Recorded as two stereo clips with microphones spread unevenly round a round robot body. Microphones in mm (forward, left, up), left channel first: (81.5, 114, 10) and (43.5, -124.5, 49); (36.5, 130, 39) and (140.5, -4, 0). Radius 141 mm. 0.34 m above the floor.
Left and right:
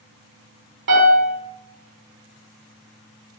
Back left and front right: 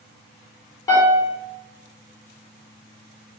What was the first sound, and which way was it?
A piano, 150° right.